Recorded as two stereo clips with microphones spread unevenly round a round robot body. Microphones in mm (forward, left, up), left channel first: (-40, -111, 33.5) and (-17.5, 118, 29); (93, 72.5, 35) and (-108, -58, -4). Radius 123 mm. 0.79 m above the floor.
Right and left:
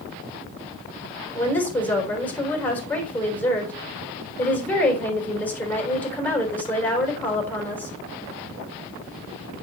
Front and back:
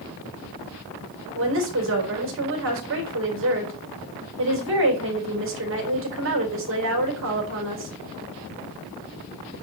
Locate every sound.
1.4 s a woman speaking: straight behind, 4 m